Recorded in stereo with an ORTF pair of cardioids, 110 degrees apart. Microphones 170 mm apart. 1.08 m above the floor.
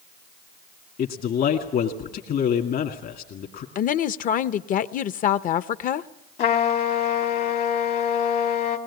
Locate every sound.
1.0 s a man speaking: 60° left, 2.5 m
3.8 s a woman speaking: 55° left, 0.8 m
6.4 s a trumpet: 65° left, 2.5 m